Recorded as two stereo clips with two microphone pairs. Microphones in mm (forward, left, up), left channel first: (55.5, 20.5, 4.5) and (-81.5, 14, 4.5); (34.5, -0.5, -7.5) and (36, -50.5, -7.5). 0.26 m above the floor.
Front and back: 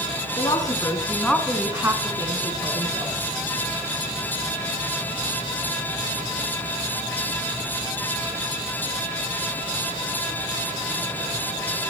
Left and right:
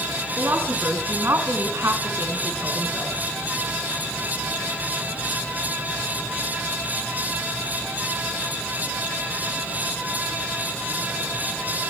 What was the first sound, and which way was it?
A woman speaking, 50° right.